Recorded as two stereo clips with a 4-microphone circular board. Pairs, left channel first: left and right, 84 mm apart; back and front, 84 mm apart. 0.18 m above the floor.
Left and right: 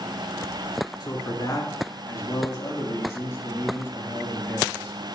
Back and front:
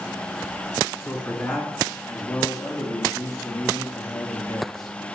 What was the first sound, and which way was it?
A man speaking, 120° left.